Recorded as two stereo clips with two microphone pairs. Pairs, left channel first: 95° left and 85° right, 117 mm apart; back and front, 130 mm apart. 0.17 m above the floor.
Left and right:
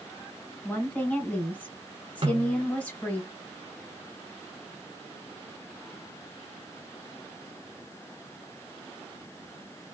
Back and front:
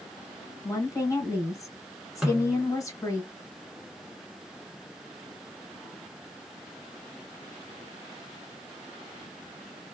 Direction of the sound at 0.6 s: 155° left.